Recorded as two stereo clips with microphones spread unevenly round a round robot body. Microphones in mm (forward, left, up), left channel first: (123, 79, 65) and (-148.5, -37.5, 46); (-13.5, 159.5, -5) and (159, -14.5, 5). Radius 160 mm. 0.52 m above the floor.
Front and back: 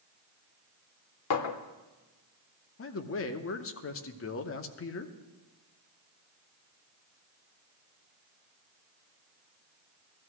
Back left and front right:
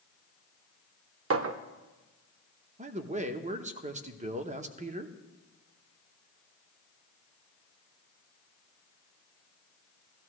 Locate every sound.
1.3 s a clink: 10° right, 0.7 m
2.8 s a man speaking: 5° left, 0.8 m